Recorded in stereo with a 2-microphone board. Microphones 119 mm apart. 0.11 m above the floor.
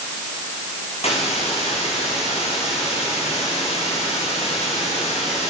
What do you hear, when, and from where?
1.0 s a hiss: 55° left (ahead or behind), 8 m